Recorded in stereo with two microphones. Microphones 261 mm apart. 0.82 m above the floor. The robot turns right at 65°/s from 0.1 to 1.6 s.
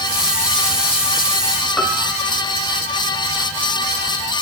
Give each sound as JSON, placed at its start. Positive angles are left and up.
{"t": 1.8, "sound": "a piano", "side_deg": 0, "distance_m": 2.5}